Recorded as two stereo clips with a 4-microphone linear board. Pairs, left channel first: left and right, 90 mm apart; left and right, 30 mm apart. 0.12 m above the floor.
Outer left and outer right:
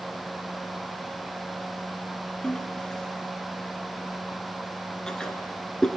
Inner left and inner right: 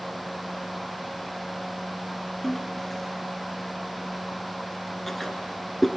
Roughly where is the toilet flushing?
Centre.